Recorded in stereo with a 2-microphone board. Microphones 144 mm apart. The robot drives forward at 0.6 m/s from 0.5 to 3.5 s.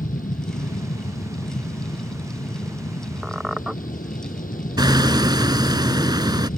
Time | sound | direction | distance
0.0 | an aircraft | 70° left (ahead or behind) | ?
3.2 | a squeak | 5° right (ahead or behind) | ?
4.8 | hammering | 30° right (ahead or behind) | ?